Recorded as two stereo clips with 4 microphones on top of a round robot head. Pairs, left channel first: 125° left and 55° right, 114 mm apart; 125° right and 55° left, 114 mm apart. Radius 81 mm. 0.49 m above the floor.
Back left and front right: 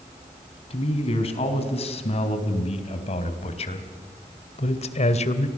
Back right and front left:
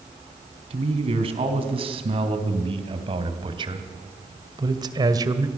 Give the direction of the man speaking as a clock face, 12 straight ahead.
9 o'clock.